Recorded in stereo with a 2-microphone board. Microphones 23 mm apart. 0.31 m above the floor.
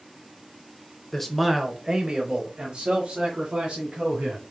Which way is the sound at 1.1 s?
10° left (ahead or behind).